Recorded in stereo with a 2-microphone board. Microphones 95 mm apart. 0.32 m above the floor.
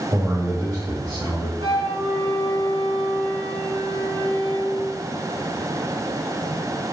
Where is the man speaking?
35° right (ahead or behind), 1.2 m.